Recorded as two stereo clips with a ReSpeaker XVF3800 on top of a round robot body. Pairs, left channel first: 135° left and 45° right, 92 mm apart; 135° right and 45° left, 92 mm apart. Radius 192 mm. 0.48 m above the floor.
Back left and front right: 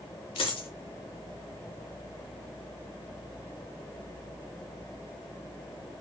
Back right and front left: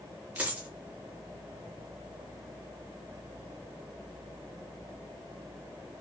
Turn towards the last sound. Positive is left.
turn(degrees=120)